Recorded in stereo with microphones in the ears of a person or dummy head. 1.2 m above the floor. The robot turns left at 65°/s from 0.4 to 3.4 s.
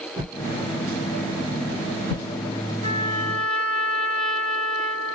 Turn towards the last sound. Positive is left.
turn(degrees=5)